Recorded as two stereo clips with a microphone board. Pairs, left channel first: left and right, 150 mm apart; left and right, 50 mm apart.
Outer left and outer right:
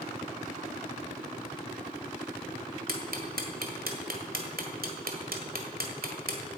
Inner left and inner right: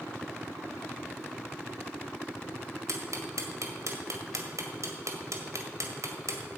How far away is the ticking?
About 1.8 m.